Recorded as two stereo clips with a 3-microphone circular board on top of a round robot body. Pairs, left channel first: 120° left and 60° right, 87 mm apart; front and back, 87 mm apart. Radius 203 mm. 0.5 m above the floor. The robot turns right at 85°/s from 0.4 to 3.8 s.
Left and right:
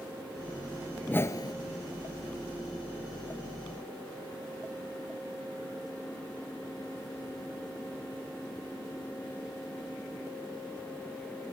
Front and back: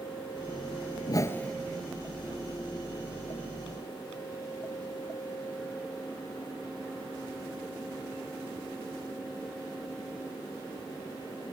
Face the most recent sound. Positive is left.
turn(degrees=-80)